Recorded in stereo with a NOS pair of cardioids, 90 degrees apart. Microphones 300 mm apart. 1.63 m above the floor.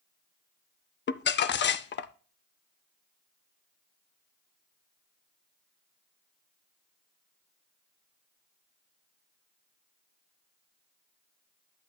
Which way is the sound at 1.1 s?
40° left.